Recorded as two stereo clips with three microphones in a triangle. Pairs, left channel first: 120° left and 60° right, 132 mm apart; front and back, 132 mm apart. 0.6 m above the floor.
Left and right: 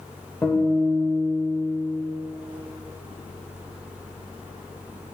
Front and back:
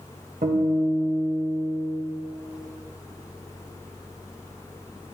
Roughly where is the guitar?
Behind.